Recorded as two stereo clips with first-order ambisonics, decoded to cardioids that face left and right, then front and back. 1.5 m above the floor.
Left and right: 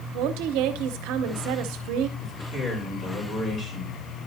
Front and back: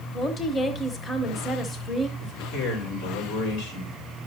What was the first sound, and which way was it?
A woman speaking, 70° right.